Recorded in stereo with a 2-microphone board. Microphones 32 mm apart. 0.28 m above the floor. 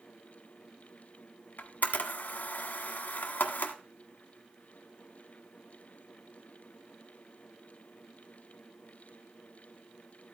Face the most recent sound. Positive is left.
turn(degrees=65)  # may be behind; listen again after turning